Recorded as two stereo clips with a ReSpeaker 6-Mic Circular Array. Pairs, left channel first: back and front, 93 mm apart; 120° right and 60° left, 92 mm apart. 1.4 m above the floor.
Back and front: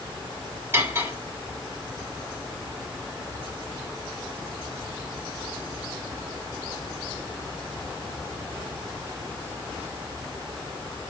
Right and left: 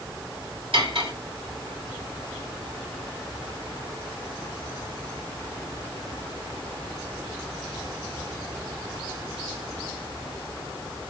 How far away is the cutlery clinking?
About 3.5 m.